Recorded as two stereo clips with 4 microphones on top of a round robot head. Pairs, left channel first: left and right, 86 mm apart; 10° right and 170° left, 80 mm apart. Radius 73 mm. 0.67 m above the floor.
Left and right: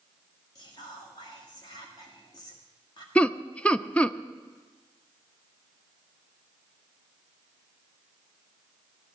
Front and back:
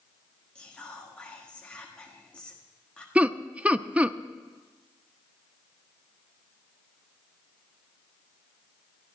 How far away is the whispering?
About 1.9 m.